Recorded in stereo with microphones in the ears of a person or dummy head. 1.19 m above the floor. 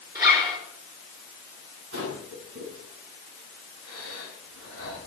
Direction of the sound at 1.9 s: 75° right (ahead or behind).